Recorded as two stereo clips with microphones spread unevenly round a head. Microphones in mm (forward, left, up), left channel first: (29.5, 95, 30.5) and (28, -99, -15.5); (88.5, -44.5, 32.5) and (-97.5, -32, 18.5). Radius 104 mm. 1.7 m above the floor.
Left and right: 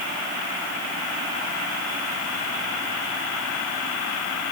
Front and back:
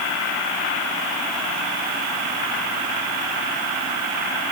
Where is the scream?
No scream in this recording.